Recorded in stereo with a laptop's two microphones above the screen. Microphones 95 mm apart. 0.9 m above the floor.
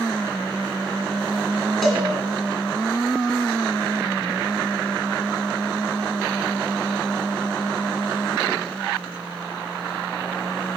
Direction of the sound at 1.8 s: Centre (ahead or behind).